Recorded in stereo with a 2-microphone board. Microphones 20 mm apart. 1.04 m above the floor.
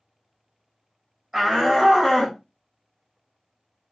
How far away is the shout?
About 1.2 m.